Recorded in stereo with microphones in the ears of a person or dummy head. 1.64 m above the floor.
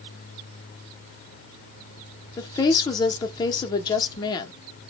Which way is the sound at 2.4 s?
20° left (ahead or behind).